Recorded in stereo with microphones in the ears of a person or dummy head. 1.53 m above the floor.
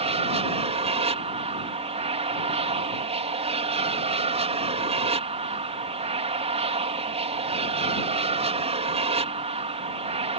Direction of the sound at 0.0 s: 30° right (ahead or behind).